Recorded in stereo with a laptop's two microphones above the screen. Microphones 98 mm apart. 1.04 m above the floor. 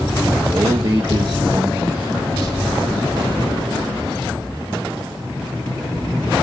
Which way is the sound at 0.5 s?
40° right (ahead or behind).